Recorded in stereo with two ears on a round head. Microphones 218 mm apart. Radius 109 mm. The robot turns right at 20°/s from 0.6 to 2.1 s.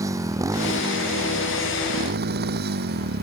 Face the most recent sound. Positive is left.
turn(degrees=-135)